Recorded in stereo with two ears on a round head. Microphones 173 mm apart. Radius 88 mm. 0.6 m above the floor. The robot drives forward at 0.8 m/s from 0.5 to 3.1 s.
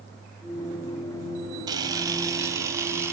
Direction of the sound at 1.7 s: 20° right (ahead or behind).